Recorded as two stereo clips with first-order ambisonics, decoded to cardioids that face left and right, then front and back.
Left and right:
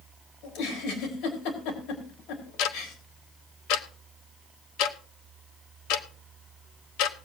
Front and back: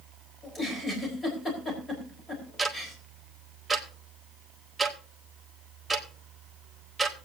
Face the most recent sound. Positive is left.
turn(degrees=100)